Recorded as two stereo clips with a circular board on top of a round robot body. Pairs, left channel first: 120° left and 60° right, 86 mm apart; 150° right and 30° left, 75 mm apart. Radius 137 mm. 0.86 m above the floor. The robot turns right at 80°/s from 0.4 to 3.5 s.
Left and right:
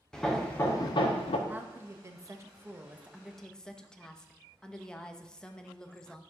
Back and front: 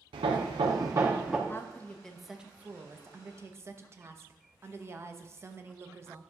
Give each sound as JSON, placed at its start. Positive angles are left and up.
{"t": 0.1, "sound": "hammering", "azimuth_deg": 35, "distance_m": 0.6}
{"t": 1.5, "sound": "a woman speaking", "azimuth_deg": -120, "distance_m": 0.8}